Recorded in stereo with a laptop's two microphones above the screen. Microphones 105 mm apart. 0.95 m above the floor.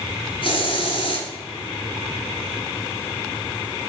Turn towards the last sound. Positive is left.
turn(degrees=50)  # may be behind; listen again after turning